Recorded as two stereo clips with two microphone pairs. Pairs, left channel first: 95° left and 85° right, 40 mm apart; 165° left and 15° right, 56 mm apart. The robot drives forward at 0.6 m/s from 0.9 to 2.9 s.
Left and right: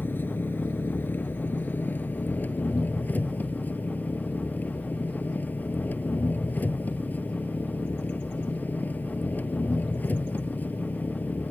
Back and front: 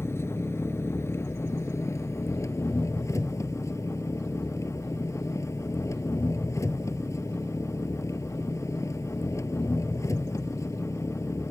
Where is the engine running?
125° left; by 11.5 s 140° left.